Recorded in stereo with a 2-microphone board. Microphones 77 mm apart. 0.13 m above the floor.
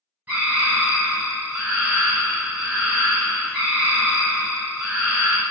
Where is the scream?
20° right (ahead or behind), 1.4 m.